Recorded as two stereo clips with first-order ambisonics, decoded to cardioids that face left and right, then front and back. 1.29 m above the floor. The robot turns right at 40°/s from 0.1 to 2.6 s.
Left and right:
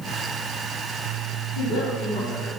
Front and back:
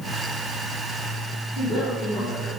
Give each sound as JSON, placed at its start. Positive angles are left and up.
{"t": 1.6, "sound": "a woman speaking", "azimuth_deg": 70, "distance_m": 2.0}